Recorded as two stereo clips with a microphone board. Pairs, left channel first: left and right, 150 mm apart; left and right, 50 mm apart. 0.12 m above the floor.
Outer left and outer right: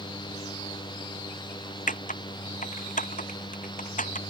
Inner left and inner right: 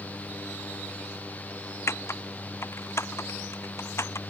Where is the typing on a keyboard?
60° left (ahead or behind).